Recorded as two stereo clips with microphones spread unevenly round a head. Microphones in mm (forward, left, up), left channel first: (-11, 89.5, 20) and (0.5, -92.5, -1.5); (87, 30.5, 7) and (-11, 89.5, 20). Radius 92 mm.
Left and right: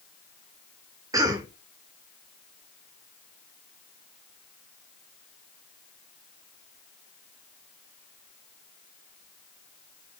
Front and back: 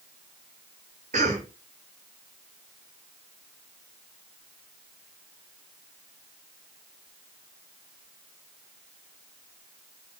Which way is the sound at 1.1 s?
160° right.